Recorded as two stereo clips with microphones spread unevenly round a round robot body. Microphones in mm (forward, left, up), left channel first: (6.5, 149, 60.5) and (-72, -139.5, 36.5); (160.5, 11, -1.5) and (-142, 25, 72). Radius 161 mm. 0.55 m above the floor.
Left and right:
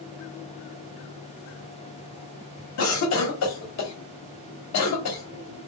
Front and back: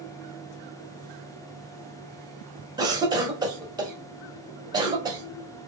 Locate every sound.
2.8 s a cough: 90° left, 1.6 m